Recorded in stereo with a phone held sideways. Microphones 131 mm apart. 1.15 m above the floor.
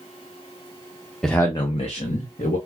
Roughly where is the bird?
I don't hear a bird.